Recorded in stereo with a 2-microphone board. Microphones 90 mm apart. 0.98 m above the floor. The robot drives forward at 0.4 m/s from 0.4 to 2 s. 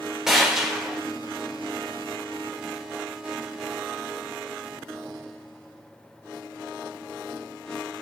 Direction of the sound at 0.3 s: 5° right (ahead or behind).